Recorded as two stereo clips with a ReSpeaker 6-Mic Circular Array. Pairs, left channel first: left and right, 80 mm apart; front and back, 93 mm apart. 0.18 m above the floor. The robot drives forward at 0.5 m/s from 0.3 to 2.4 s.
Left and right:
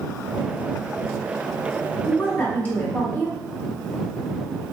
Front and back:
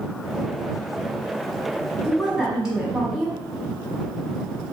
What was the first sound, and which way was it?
A woman speaking, 85° left.